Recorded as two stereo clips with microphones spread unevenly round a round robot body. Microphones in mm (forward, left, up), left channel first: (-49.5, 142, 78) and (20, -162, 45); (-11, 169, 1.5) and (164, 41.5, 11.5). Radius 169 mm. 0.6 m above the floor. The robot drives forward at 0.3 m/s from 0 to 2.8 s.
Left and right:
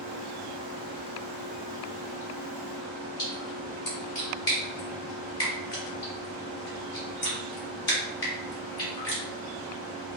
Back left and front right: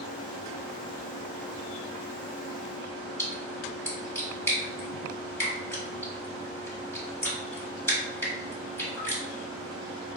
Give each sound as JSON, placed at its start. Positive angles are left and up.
{"t": 3.2, "sound": "a splash", "azimuth_deg": 70, "distance_m": 1.8}